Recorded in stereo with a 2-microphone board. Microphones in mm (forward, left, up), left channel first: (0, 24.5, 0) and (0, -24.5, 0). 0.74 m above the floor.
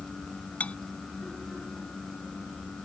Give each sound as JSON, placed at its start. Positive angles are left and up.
{"t": 0.6, "sound": "cutlery clinking", "side_deg": 30}